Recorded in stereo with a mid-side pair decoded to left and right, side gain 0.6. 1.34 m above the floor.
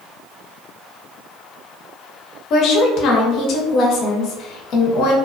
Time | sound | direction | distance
2.5 | a woman speaking | 60° left | 0.8 m